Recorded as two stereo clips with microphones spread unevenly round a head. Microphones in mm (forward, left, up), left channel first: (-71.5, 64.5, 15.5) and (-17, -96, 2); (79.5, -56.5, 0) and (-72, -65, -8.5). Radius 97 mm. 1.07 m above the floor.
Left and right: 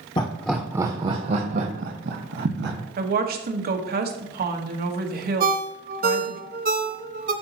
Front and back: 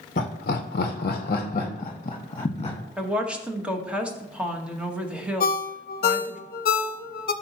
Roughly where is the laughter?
Ahead left.